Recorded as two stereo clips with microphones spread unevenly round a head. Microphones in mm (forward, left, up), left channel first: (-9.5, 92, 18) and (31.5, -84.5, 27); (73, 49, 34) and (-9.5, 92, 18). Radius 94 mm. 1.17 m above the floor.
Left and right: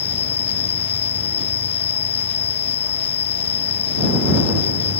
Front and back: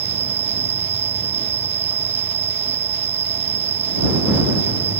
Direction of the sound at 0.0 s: 165° left.